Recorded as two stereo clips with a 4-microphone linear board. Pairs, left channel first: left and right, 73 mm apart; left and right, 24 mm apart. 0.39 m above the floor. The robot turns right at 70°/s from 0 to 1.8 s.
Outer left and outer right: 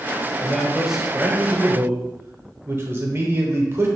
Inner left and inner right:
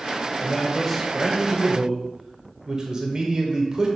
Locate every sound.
0.4 s a man speaking: 150° left, 0.9 m; by 3.9 s 110° right, 0.9 m